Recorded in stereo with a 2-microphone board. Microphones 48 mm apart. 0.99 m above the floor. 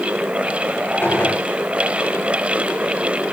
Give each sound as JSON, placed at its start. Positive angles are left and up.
{"t": 1.0, "sound": "a gunshot", "side_deg": 45, "distance_m": 4.5}